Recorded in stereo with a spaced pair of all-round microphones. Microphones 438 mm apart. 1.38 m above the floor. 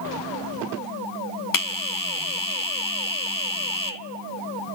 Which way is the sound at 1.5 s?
45° left (ahead or behind).